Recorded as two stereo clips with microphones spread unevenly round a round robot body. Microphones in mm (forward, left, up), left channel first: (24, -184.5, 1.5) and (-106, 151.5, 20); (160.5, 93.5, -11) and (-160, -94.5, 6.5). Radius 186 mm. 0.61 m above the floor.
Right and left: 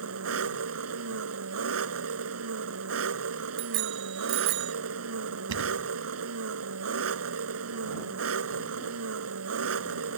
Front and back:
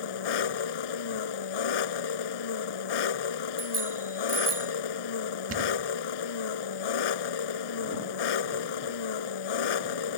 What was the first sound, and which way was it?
An engine running, 55° left.